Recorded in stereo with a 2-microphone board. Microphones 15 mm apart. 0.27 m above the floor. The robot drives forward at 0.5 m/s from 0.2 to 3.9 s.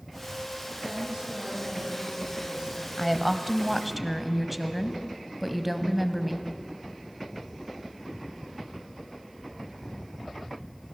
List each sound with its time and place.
0.8 s a woman speaking: 60° right (ahead or behind), 6.5 m; by 2.9 s 55° right (ahead or behind), 7 m
3.0 s a woman speaking: 5° right (ahead or behind), 1.2 m; by 6.5 s centre (ahead or behind), 1.5 m